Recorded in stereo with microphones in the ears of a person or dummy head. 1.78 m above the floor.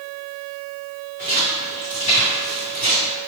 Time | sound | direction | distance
1.2 | footsteps | 20° left (ahead or behind) | 1.9 m